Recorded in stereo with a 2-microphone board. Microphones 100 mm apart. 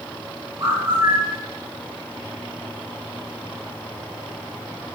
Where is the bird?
30° right (ahead or behind), 5 m.